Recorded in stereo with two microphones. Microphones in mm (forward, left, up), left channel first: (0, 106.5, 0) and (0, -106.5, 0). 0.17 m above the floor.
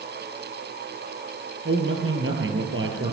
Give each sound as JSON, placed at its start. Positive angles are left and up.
{"t": 1.6, "sound": "a man speaking", "side_deg": -70, "distance_m": 5.0}